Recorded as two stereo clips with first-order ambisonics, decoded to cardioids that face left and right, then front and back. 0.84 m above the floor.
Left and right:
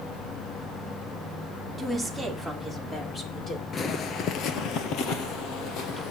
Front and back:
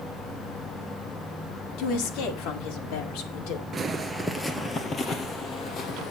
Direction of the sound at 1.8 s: Straight ahead.